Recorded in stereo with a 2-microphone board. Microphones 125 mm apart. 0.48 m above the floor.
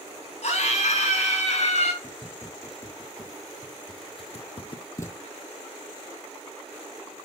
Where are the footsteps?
20° left (ahead or behind), 4 m; by 5.2 s 15° left (ahead or behind), 1.1 m.